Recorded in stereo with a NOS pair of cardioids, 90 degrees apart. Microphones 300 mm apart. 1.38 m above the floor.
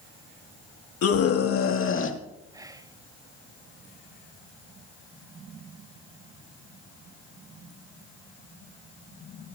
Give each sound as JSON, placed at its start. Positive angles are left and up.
{"t": 1.0, "sound": "a scream", "azimuth_deg": 60, "distance_m": 2.5}
{"t": 2.5, "sound": "whispering", "azimuth_deg": -10, "distance_m": 0.8}